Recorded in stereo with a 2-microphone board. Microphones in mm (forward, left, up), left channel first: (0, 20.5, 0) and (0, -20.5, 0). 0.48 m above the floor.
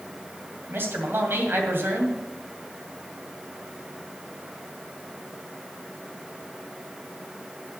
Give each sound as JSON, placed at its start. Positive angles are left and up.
{"t": 0.7, "sound": "a man speaking", "side_deg": -60, "distance_m": 2.5}